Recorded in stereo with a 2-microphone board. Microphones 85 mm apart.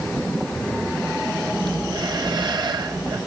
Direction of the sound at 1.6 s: 60° right (ahead or behind).